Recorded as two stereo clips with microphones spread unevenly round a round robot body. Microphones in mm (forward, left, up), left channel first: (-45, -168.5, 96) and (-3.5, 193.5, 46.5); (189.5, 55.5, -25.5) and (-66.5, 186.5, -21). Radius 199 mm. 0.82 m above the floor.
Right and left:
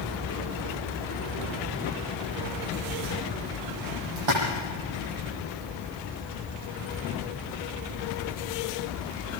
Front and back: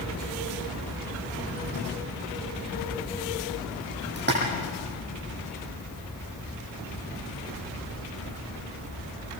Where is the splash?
100° left, 9.5 m.